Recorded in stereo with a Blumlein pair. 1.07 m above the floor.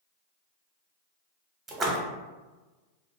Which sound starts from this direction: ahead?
A splash, at 1.7 s.